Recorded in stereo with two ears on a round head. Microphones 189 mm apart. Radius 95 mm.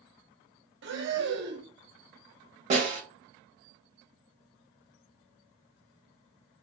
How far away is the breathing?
About 0.7 m.